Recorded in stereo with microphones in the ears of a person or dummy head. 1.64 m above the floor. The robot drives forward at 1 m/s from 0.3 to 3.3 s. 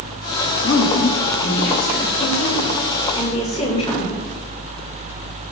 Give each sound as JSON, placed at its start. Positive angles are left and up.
{"t": 0.6, "sound": "a woman speaking", "side_deg": 65, "distance_m": 2.0}